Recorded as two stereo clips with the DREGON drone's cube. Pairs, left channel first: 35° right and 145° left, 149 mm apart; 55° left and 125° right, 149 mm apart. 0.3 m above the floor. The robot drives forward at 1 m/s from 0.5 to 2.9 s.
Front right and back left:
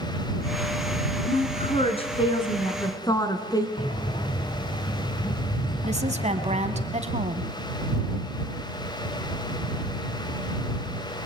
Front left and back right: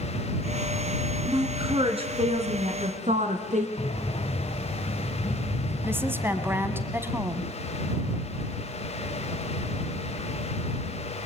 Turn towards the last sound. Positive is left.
turn(degrees=165)